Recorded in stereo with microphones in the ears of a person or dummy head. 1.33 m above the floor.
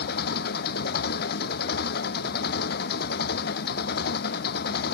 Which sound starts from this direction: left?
An engine running, at 0.0 s.